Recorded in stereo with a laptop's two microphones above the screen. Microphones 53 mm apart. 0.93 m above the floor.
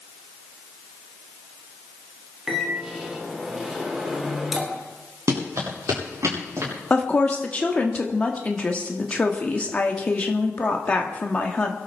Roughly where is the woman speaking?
Left.